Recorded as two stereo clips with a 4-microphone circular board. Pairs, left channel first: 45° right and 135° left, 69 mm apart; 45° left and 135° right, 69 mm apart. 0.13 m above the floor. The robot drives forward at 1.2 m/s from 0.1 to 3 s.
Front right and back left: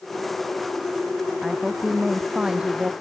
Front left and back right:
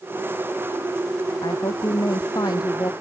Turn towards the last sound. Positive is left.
turn(degrees=60)